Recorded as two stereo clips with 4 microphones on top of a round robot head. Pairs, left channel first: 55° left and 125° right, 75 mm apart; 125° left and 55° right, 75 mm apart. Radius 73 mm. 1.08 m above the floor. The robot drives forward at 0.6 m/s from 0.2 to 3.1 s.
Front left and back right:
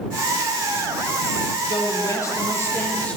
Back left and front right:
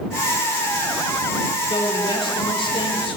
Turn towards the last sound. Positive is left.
turn(degrees=130)